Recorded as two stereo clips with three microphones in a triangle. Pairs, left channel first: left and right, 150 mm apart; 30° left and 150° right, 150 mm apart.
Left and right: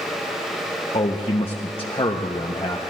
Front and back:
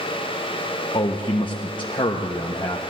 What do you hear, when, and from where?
0.9 s a man speaking: 65° left, 0.8 m